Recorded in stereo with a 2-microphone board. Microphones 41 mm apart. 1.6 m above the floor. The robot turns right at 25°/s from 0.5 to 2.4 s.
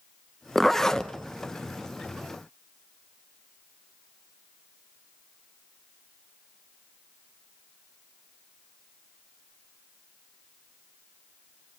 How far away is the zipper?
About 1.0 m.